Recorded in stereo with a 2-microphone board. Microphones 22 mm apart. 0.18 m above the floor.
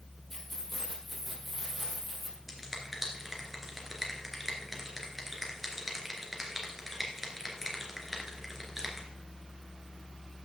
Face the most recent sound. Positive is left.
turn(degrees=-10)  # may be behind; listen again after turning